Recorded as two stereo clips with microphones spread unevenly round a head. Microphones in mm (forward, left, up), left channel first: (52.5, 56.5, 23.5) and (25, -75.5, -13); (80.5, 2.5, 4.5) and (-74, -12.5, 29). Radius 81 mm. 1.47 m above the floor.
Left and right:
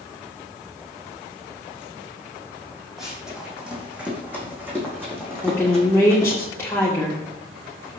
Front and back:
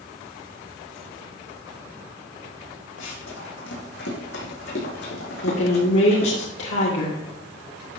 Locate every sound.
3.0 s running footsteps: 10° right, 4 m; by 6.4 s 25° right, 5.5 m
5.4 s a woman speaking: 5° left, 1.9 m